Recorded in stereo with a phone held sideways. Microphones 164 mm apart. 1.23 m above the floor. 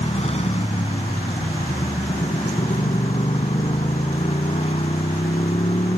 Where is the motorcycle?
40° left (ahead or behind).